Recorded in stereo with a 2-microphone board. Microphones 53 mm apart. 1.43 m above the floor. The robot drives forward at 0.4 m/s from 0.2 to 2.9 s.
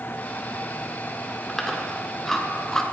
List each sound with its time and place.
1.5 s chewing: 5° left (ahead or behind), 1.3 m; by 2.8 s 10° left (ahead or behind), 0.8 m